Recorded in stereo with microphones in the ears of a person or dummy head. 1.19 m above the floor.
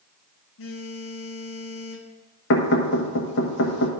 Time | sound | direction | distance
0.6 | a phone buzzing | 70° left (ahead or behind) | 0.8 m
2.5 | knocking | 65° left (ahead or behind) | 1.2 m